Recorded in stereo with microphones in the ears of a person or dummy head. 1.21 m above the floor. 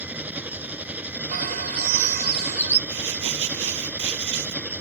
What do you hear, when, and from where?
0.0 s an engine running: 10° right (ahead or behind)
1.3 s a bird: 50° right (ahead or behind)
2.9 s crumpling: 75° right (ahead or behind)